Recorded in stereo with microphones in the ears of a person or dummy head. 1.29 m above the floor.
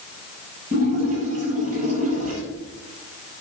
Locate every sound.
0.7 s a splash: 45° right (ahead or behind), 6 m